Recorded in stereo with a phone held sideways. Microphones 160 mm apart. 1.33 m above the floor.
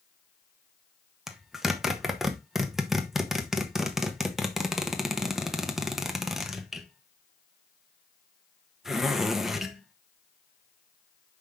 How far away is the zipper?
About 1.1 m.